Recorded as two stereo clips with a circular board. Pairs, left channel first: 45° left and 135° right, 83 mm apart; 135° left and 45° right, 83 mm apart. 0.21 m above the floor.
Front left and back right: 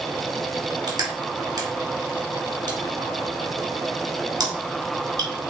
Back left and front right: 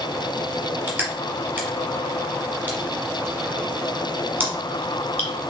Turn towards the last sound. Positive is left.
turn(degrees=-110)